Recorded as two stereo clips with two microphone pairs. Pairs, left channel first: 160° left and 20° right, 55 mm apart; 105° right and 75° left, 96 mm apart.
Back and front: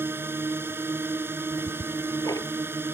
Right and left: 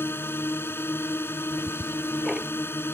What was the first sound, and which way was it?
A drone, 45° right.